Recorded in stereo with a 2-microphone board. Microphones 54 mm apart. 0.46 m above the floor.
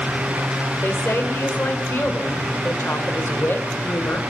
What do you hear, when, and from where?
0.8 s a woman speaking: 45° left (ahead or behind), 1.5 m